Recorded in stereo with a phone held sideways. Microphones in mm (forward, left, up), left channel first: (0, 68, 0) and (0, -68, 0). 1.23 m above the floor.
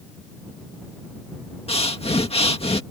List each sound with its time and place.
1.7 s breathing: 45° left (ahead or behind)